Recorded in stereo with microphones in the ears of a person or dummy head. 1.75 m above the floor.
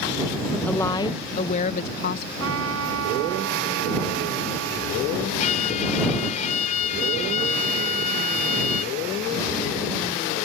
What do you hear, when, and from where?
0.7 s a woman speaking: 5° left (ahead or behind); by 2.3 s 50° left (ahead or behind)
2.4 s a trumpet: 85° right
5.4 s a violin: 35° left (ahead or behind)